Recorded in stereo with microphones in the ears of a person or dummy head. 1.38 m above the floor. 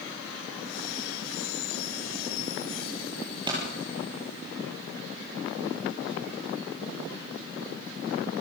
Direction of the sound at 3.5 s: 25° right (ahead or behind).